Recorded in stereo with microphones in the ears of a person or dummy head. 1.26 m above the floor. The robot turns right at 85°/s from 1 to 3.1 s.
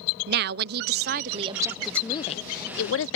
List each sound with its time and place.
0.3 s a woman speaking: 75° right; by 3.2 s 105° left